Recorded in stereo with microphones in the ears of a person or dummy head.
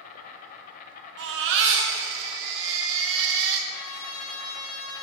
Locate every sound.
0.0 s an insect: 45° left (ahead or behind), 0.8 m
1.2 s a baby crying: 70° right (ahead or behind), 0.9 m
3.7 s a trumpet: 85° left, 2.5 m